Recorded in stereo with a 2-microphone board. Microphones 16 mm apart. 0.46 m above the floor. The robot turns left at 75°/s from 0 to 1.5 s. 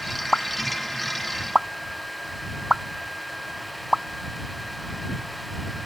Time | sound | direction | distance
0.3 | a pop | 60° left (ahead or behind) | ?